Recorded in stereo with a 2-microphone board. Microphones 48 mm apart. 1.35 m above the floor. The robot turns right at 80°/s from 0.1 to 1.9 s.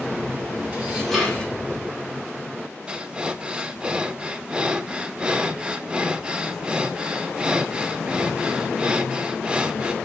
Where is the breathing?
20° right (ahead or behind), 0.6 m.